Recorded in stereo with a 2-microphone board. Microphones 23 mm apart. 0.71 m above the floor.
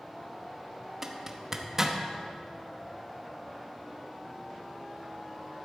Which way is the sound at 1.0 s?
25° right (ahead or behind).